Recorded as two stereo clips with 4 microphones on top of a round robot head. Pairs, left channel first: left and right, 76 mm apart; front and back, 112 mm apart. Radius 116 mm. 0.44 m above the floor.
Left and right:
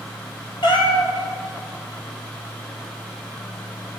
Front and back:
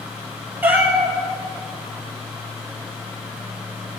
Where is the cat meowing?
105° left, 2 m.